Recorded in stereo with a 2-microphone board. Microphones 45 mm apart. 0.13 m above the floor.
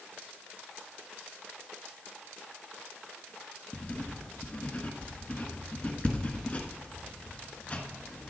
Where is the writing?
25° left (ahead or behind), 1.4 m.